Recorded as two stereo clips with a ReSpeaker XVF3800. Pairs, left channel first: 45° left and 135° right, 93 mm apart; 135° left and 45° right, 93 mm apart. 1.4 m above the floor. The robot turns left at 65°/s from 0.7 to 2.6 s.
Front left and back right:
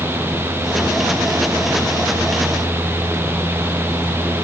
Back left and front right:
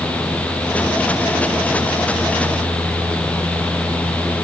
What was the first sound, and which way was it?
Only background noise.